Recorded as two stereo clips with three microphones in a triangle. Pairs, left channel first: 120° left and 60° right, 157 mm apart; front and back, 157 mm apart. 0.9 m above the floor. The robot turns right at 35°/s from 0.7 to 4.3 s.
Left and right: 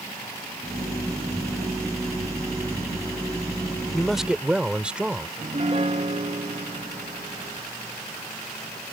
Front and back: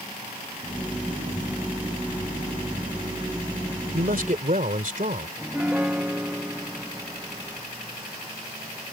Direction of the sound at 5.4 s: 100° right.